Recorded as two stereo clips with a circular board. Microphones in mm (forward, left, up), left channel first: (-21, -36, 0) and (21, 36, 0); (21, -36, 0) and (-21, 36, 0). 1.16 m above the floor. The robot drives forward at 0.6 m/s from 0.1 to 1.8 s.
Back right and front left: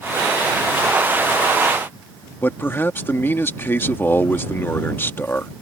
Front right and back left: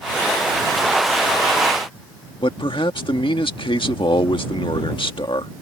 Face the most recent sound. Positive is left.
turn(degrees=-60)